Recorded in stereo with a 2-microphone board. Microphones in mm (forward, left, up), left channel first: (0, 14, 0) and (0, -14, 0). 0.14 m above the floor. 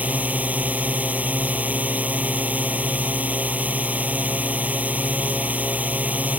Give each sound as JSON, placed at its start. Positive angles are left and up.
{"t": 0.0, "sound": "a drone", "side_deg": -65}